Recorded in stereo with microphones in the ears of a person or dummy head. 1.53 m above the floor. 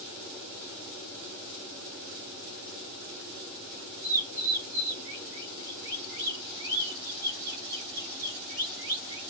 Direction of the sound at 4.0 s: 5° right (ahead or behind).